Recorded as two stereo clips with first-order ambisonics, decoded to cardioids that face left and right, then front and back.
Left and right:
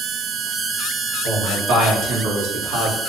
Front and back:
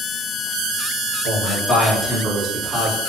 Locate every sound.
1.2 s a man speaking: 80° right, 1.5 m; by 3.0 s 110° right, 0.8 m